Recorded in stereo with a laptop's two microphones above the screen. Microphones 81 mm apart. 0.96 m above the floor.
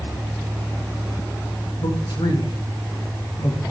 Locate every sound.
1.8 s a man speaking: 65° left (ahead or behind), 1.3 m